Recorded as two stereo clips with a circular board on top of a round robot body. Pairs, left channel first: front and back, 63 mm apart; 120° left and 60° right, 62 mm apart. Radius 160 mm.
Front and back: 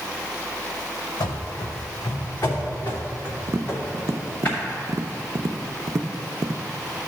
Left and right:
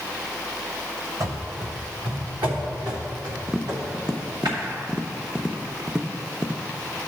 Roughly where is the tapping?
Behind right.